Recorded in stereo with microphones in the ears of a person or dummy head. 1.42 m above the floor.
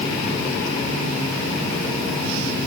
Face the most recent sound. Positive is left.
No sound to turn to.